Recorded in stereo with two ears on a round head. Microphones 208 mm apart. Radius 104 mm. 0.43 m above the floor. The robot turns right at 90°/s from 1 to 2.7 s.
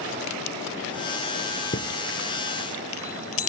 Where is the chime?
30° left (ahead or behind); by 3.5 s 65° left (ahead or behind).